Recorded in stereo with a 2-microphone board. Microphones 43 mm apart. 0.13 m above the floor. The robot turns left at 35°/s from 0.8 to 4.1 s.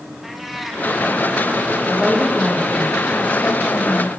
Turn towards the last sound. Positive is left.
turn(degrees=110)